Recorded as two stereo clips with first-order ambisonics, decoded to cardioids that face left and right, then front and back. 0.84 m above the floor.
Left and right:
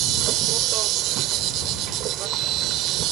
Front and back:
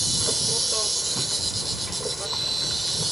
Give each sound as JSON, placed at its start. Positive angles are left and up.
{"t": 0.0, "sound": "an insect", "azimuth_deg": -95}